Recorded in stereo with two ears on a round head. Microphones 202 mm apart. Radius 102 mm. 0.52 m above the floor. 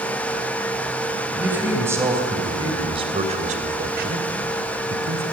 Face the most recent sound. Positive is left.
turn(degrees=-60)  # may be behind; listen again after turning